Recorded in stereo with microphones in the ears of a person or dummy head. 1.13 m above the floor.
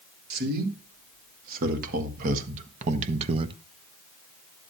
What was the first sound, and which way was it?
A man speaking, 55° right (ahead or behind).